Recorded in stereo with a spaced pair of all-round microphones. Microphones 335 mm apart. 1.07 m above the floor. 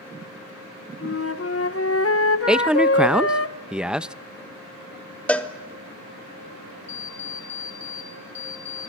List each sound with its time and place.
1.0 s a flute: 45° left (ahead or behind), 0.8 m
2.5 s a man speaking: 5° right (ahead or behind), 0.5 m
5.3 s a cowbell: 5° left (ahead or behind), 1.0 m
6.9 s an alarm clock: 80° right, 3 m